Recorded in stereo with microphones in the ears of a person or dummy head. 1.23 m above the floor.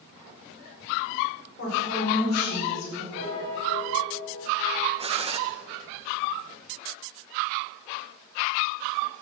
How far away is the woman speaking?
About 5 m.